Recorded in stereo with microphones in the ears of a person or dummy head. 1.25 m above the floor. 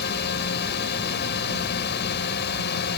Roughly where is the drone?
Left.